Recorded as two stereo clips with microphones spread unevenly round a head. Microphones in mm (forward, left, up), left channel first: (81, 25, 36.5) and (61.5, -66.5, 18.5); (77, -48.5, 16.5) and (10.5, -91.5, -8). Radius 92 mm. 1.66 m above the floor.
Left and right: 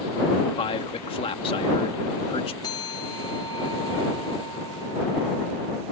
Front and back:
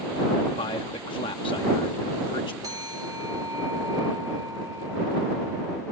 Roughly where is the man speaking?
Ahead left.